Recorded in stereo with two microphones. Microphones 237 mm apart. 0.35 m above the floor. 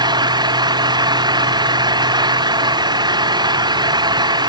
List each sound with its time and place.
0.0 s an engine running: 15° right (ahead or behind)